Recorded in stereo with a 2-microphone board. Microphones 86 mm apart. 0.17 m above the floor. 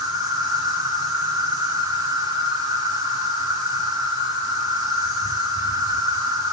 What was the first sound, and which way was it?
An insect, 40° right (ahead or behind).